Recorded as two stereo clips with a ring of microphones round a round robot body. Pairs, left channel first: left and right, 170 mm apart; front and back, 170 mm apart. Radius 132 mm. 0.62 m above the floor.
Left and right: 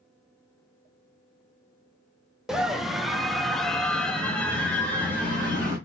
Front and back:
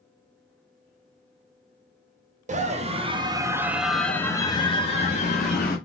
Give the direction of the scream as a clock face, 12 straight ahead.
6 o'clock.